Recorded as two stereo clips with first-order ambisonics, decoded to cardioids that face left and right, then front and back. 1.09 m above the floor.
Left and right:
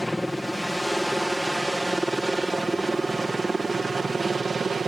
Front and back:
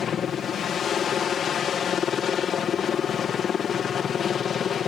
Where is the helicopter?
10° left; by 4.9 s 30° right.